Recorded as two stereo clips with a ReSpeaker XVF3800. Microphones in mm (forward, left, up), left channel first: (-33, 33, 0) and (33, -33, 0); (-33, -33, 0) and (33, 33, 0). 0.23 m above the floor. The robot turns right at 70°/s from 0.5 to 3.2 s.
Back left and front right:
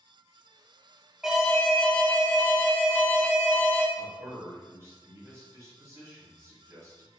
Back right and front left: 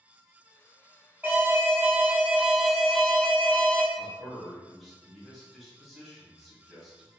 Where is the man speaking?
50° right, 1.4 m.